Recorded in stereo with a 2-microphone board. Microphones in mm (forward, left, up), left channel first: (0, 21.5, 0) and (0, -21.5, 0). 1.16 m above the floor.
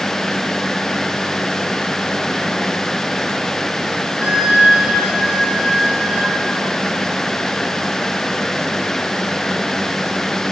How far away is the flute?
About 1.9 m.